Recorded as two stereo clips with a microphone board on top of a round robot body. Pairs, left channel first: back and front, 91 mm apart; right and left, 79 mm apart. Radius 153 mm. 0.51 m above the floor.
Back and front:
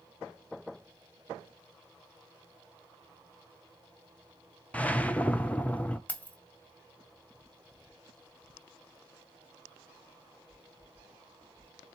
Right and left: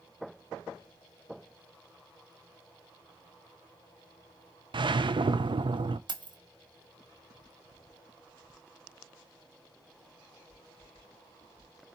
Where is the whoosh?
105° left, 0.6 m.